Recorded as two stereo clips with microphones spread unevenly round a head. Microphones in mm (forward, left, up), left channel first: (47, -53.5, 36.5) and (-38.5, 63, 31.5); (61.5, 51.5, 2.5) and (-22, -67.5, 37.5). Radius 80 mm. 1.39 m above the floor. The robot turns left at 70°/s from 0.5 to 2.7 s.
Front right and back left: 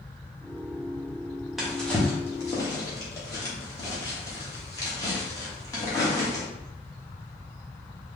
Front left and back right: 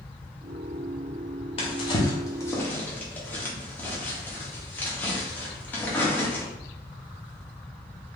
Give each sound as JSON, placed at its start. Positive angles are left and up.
{"t": 1.6, "sound": "a drawer", "azimuth_deg": 35, "distance_m": 0.7}